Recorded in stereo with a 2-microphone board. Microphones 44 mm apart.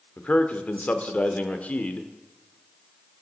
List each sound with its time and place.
0.2 s a man speaking: 30° left (ahead or behind), 0.9 m